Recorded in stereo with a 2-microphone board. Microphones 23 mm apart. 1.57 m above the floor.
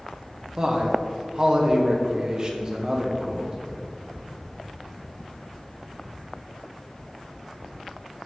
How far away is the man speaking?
About 1.0 m.